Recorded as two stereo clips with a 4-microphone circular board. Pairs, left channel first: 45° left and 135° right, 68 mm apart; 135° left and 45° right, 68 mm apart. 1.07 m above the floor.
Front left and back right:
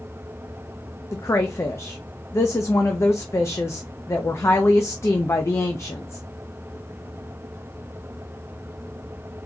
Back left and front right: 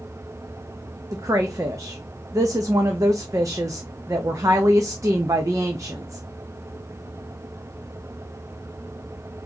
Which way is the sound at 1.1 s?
5° right.